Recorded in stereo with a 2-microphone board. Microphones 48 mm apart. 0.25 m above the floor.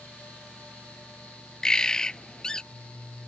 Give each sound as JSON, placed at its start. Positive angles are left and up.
{"t": 1.6, "sound": "a bird", "side_deg": 15}